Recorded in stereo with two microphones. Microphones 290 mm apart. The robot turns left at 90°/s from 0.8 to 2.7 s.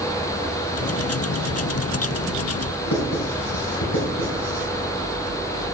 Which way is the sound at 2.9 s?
75° left (ahead or behind).